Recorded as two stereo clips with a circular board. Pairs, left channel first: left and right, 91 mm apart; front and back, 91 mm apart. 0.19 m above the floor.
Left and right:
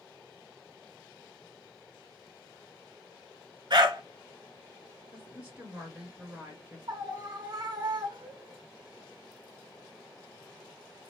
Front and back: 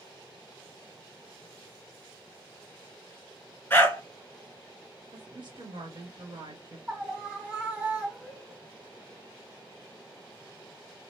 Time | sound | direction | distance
3.7 | a dog barking | 65° right | 1.1 m
5.1 | a woman speaking | 160° right | 2.5 m
6.9 | a scream | 115° right | 2 m